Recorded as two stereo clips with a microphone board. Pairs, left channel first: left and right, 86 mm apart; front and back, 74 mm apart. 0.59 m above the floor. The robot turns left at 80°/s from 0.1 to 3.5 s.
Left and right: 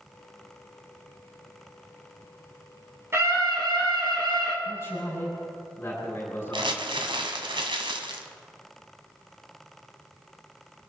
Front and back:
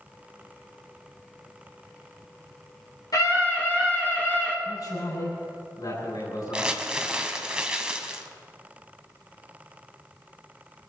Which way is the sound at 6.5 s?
100° right.